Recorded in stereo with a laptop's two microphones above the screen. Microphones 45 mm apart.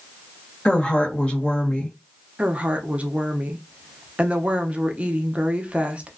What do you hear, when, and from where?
0.7 s a woman speaking: 20° left (ahead or behind), 1.3 m
2.4 s a woman speaking: 30° right (ahead or behind), 0.6 m